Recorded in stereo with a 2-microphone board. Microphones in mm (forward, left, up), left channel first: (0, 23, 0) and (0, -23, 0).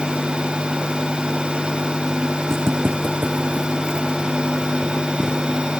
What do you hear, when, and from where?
2.5 s footsteps: 60° right (ahead or behind), 0.9 m; by 5.4 s 15° right (ahead or behind), 2.5 m